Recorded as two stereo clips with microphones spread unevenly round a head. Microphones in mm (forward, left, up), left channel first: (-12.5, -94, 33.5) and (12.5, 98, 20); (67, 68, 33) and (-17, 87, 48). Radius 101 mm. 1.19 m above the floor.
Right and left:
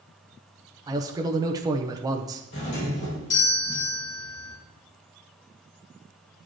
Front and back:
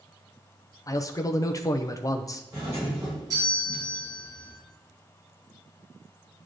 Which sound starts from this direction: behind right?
A doorbell, at 2.5 s.